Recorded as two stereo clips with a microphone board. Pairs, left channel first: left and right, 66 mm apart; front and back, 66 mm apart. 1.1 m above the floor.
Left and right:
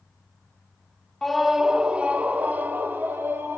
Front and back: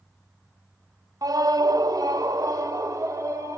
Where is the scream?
175° left, 0.6 m; by 3.6 s 145° right, 1.8 m.